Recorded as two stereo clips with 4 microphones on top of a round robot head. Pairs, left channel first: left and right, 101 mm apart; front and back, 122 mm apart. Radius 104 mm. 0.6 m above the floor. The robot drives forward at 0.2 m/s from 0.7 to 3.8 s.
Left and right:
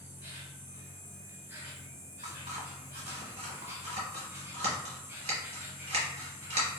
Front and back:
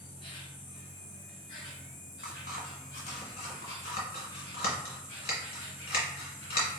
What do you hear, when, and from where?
0.0 s an insect: 30° right, 1.7 m; by 6.8 s 55° right, 1.4 m
2.2 s scissors: 40° right, 1.1 m; by 6.7 s 55° right, 0.9 m